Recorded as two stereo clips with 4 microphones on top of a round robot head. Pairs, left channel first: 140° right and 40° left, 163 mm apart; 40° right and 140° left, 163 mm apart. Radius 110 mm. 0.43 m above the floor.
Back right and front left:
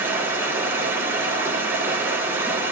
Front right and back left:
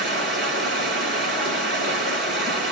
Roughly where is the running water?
Behind left.